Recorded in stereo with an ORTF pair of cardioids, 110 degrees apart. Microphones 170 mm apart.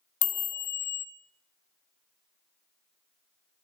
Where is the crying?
I don't hear crying.